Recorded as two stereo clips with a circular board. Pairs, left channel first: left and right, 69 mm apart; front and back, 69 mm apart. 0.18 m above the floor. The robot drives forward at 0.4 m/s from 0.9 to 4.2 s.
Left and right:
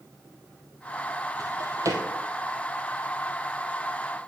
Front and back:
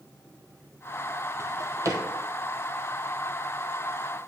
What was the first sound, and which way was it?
A drawer, 130° right.